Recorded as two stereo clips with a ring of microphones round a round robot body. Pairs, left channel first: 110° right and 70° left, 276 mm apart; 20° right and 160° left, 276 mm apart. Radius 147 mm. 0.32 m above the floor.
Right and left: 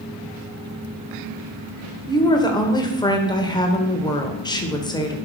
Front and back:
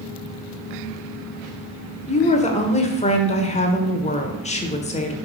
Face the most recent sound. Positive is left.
turn(degrees=-55)